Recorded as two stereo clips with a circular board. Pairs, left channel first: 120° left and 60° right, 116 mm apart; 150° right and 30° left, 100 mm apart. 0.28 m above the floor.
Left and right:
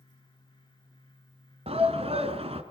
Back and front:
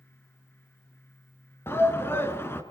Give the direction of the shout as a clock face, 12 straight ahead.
3 o'clock.